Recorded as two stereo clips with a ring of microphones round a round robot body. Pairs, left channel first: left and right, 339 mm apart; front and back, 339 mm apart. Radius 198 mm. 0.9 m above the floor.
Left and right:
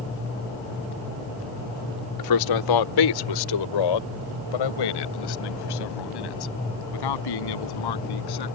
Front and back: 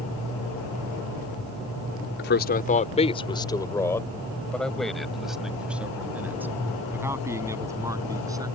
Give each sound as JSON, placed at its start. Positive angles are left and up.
{"t": 2.2, "sound": "a man speaking", "azimuth_deg": 60}